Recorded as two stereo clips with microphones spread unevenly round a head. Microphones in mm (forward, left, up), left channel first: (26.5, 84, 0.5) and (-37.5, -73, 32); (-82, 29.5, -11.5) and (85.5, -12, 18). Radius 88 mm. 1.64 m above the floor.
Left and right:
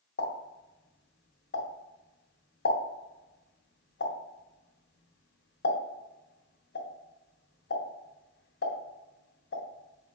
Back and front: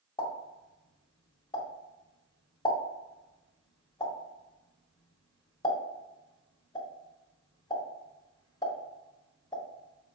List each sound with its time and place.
0.2 s a pop: 95° left, 2.5 m